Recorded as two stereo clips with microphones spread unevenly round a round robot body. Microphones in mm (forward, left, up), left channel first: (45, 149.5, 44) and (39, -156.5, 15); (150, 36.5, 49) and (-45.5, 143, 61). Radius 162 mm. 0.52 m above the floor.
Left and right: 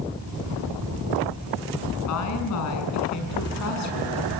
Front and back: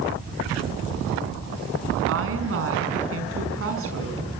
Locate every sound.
2.1 s a woman speaking: 130° left, 5.5 m